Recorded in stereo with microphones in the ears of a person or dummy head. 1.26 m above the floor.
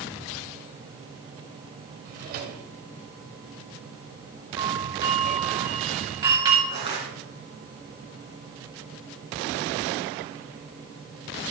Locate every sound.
2.0 s a drawer: 55° right (ahead or behind), 2 m
4.6 s a doorbell: 20° right (ahead or behind), 9.5 m
6.7 s crushing: 30° right (ahead or behind), 5 m